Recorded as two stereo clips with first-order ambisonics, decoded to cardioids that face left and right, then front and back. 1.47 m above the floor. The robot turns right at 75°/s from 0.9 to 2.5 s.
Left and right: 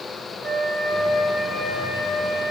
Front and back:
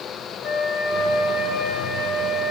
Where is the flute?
25° right, 0.8 m; by 2.5 s 95° left, 0.8 m.